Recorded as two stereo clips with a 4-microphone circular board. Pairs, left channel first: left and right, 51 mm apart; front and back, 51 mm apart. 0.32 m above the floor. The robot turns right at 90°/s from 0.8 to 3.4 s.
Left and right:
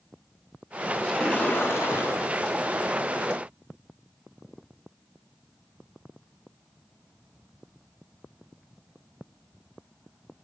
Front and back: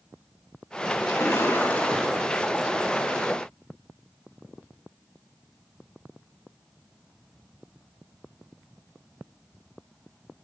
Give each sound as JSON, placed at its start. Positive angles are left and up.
{"t": 1.0, "sound": "a splash", "azimuth_deg": -5, "distance_m": 3.5}